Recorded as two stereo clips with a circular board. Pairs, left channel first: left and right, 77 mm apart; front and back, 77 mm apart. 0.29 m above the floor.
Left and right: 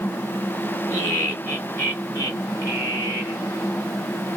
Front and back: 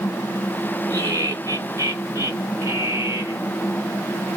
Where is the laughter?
150° left, 3.5 m; by 3.4 s 130° left, 2.5 m.